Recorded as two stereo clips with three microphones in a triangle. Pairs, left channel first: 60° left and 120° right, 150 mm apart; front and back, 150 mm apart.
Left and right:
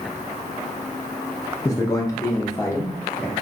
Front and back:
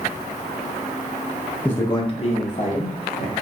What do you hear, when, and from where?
1.6 s a man speaking: 65° left, 0.6 m; by 3.3 s 10° right, 1.4 m